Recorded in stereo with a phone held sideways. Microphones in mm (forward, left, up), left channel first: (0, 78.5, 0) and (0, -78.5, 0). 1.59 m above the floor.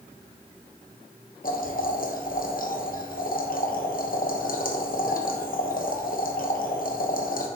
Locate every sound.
1.4 s boiling: 65° left (ahead or behind), 1.1 m